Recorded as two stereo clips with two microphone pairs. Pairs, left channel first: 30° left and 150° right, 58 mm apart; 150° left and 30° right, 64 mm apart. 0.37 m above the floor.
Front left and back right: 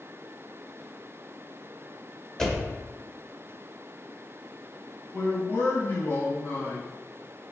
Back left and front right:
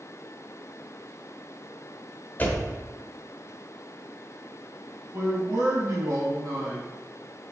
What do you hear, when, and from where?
2.4 s a door slam: 105° left, 1.1 m
5.1 s a man speaking: 20° right, 3.5 m